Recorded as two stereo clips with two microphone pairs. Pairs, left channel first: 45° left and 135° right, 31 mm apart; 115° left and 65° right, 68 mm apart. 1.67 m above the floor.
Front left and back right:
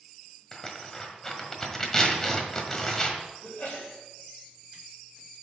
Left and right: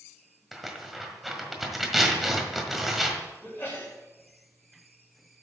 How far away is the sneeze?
About 3.5 m.